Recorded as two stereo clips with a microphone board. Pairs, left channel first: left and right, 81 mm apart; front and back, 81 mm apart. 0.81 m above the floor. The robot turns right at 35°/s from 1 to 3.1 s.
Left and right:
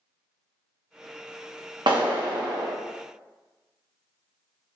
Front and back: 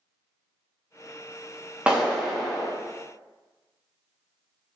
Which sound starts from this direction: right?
A clap, at 1.9 s.